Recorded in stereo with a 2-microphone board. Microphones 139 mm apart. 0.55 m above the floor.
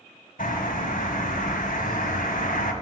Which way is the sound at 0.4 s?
75° left (ahead or behind).